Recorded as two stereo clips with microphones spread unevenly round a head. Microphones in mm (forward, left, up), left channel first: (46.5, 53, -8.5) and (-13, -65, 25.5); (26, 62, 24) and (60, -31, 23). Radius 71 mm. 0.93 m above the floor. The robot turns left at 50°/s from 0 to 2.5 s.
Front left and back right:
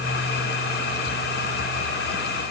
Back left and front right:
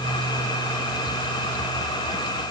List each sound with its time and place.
Only background noise.